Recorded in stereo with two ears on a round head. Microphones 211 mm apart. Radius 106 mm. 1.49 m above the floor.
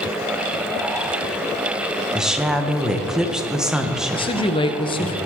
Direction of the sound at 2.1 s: 5° right (ahead or behind).